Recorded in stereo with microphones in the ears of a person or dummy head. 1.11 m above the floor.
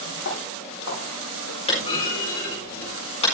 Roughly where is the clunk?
Left.